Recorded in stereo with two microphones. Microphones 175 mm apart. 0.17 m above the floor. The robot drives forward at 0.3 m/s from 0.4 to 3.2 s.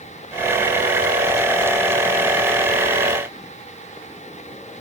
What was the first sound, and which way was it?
Only background noise.